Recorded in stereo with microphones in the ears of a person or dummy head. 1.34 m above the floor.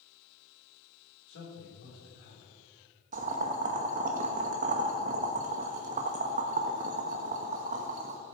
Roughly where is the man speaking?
Left.